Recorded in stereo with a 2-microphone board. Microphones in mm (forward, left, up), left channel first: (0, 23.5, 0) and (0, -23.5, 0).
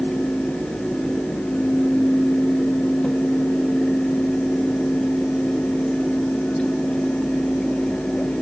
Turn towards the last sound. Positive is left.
No sound to turn to.